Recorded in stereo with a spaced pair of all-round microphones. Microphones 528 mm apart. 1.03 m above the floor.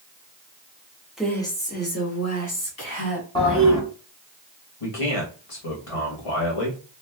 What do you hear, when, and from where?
1.2 s a woman speaking: centre (ahead or behind), 1.0 m; by 3.2 s 45° left (ahead or behind), 1.6 m
3.4 s a toilet flushing: 10° left (ahead or behind), 1.5 m
4.8 s a man speaking: 75° left (ahead or behind), 1.3 m